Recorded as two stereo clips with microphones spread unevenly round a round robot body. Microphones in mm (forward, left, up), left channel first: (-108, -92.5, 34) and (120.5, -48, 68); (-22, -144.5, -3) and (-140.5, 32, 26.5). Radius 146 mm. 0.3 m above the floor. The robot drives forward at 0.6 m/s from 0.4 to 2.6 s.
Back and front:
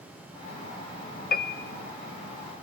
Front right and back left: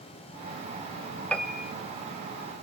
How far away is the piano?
About 0.8 m.